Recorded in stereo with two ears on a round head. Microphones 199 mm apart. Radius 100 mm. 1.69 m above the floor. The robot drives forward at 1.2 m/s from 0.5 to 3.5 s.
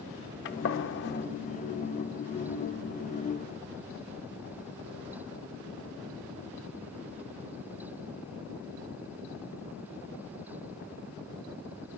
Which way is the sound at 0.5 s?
55° left (ahead or behind).